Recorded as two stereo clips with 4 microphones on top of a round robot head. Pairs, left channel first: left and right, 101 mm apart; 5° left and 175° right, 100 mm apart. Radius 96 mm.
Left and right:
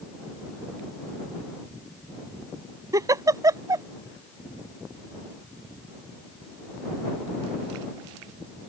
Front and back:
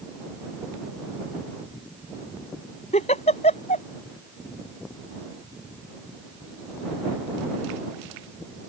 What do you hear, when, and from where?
2.9 s a giggle: 35° right